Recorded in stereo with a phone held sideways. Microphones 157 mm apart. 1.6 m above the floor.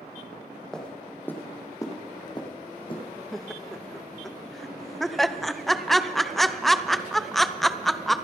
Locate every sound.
0.7 s footsteps: 5° left (ahead or behind), 3 m; by 3.0 s 35° left (ahead or behind), 3.5 m
3.3 s laughter: centre (ahead or behind), 0.7 m